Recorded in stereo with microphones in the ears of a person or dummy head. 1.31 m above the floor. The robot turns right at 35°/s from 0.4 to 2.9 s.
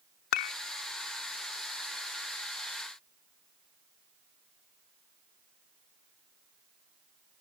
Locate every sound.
0.3 s dishes clattering: 60° left (ahead or behind); by 0.5 s 55° left (ahead or behind)